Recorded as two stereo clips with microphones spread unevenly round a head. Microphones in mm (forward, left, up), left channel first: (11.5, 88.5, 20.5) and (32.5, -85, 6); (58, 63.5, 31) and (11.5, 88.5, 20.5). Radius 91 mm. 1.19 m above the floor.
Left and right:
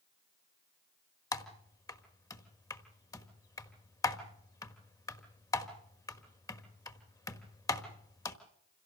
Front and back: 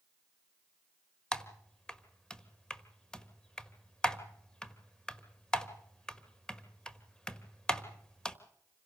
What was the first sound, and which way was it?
Typing on a keyboard, 35° left.